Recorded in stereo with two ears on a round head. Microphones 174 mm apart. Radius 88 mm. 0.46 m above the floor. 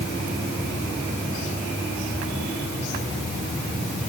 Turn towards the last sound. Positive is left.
No sound to turn to.